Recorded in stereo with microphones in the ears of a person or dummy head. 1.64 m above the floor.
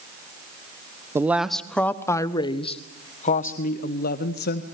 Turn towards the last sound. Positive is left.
turn(degrees=60)  # may be behind; listen again after turning